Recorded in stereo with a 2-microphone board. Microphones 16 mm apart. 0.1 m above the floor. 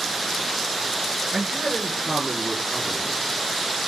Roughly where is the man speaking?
Right.